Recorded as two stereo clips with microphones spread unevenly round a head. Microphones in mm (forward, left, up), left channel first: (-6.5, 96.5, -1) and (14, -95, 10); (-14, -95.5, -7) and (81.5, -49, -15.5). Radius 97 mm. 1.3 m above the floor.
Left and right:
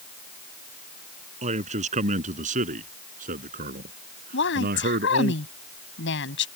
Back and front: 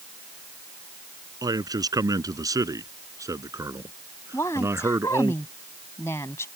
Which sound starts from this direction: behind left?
A woman speaking, at 4.3 s.